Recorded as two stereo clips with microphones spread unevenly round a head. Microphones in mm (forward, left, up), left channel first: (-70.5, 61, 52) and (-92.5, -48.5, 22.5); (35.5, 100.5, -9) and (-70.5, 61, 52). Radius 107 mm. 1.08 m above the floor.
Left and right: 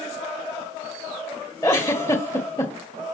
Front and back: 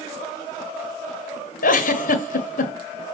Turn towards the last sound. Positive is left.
turn(degrees=10)